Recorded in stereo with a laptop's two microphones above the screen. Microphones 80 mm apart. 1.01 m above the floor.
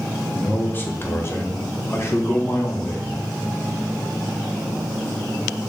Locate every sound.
0.3 s a man speaking: 15° left (ahead or behind), 0.6 m; by 3.1 s 35° left (ahead or behind), 1.8 m